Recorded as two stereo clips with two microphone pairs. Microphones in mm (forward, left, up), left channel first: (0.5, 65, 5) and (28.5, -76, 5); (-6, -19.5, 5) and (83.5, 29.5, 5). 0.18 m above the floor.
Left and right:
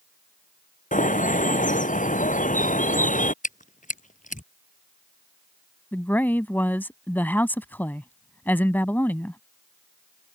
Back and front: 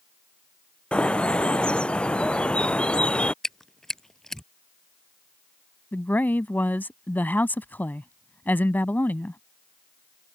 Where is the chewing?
120° left.